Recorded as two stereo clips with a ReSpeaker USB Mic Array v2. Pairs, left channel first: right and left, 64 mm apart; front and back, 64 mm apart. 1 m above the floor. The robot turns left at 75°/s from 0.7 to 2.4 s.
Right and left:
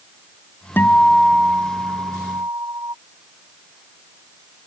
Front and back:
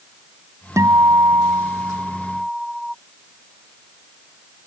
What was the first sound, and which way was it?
A guitar, 145° right.